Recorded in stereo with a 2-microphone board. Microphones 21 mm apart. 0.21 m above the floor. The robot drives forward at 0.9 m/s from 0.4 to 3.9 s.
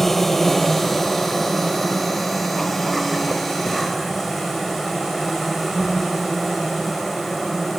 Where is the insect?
10° left (ahead or behind), 1.9 m; by 7.8 s 5° left (ahead or behind), 5 m.